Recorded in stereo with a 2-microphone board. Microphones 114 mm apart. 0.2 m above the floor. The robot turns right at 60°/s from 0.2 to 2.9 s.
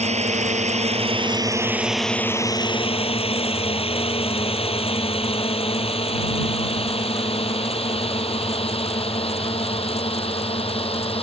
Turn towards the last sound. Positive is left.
turn(degrees=55)  # may be behind; listen again after turning